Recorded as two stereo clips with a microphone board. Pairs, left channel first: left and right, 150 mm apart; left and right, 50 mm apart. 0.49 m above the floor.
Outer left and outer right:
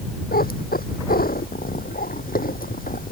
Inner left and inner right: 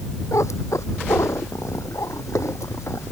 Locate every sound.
0.3 s a cat meowing: 85° left; by 3.1 s 70° left (ahead or behind)